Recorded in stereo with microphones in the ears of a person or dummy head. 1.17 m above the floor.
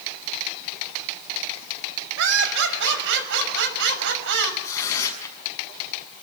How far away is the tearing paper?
About 6.5 m.